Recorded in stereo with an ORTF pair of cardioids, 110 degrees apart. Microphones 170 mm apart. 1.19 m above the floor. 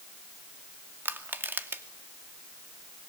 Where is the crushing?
15° right, 2.5 m.